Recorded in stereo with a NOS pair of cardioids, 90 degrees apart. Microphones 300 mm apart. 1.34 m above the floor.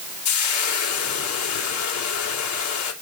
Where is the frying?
70° left, 3.5 m.